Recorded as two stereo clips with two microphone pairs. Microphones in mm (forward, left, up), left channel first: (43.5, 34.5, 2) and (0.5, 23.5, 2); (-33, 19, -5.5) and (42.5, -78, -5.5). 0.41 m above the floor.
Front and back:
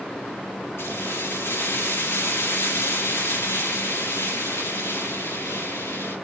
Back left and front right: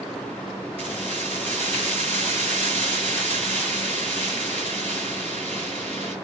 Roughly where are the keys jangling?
Ahead.